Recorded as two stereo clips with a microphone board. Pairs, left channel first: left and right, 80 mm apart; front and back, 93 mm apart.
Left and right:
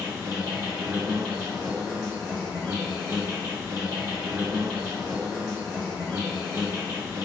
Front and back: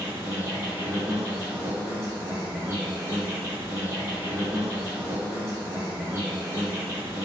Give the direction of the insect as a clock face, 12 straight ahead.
4 o'clock.